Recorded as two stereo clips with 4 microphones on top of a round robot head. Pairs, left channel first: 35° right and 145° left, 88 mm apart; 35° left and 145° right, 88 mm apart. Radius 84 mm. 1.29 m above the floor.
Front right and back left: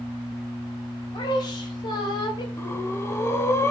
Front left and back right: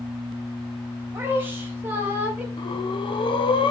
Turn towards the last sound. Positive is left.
turn(degrees=25)